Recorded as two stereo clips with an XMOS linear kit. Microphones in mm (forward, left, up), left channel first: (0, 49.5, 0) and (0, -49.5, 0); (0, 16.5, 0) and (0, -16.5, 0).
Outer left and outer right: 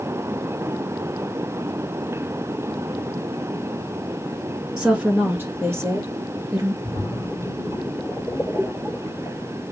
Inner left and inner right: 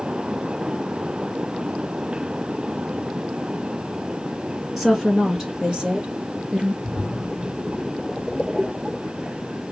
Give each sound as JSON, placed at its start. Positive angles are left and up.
{"t": 4.8, "sound": "a woman speaking", "side_deg": -10, "distance_m": 1.5}
{"t": 6.8, "sound": "a splash", "side_deg": 0, "distance_m": 1.8}